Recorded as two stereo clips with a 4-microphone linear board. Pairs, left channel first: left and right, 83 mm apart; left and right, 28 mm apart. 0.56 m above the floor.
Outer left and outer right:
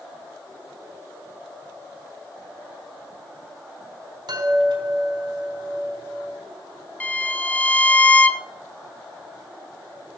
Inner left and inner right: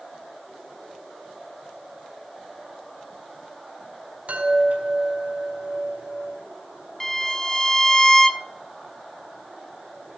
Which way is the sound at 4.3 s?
65° right (ahead or behind).